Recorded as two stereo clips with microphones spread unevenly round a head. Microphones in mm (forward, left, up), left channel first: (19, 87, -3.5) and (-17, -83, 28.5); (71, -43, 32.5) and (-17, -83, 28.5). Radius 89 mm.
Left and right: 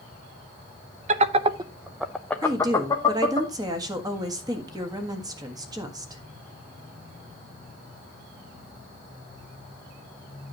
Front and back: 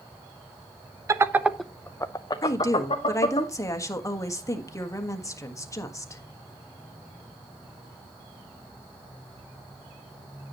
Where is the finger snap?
I don't hear a finger snap.